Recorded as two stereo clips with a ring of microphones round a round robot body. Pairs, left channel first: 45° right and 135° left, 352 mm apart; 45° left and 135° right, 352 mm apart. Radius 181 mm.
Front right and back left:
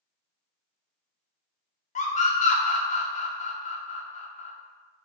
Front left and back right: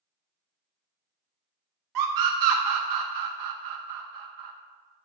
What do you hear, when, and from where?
1.9 s a scream: 115° right, 0.6 m